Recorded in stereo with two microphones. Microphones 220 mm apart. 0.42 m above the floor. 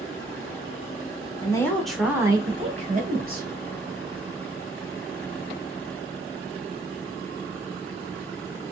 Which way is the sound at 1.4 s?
20° left (ahead or behind).